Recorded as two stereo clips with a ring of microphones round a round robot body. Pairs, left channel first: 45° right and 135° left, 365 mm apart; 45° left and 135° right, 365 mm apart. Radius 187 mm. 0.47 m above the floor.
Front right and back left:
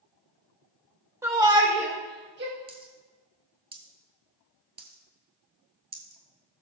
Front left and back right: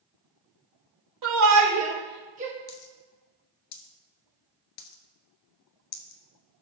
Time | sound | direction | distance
1.2 | a shout | 145° right | 1.7 m
2.7 | a dropped coin | 60° left | 1.2 m